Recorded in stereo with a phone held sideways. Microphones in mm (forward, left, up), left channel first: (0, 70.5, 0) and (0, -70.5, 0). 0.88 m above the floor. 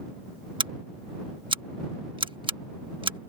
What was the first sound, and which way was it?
Scissors, 35° right (ahead or behind).